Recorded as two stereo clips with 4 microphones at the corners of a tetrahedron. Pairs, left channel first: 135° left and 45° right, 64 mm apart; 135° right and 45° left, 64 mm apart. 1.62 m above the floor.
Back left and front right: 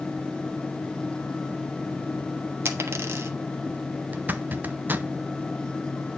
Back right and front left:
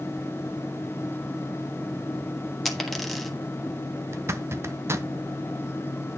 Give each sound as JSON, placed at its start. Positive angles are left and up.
{"t": 2.6, "sound": "a dropped coin", "azimuth_deg": -50, "distance_m": 1.2}
{"t": 4.1, "sound": "a zipper", "azimuth_deg": 10, "distance_m": 0.6}